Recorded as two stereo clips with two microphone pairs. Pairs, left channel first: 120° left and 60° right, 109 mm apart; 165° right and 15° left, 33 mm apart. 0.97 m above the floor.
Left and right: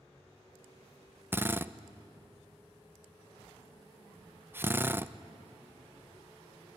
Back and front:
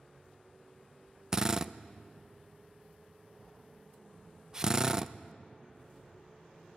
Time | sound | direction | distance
1.3 | a drill | 30° right | 0.6 m